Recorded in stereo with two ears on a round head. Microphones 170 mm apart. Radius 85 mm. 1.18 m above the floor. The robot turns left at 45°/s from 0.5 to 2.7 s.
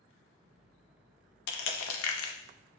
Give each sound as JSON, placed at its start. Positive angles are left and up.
{"t": 1.5, "sound": "crushing", "side_deg": 60, "distance_m": 0.6}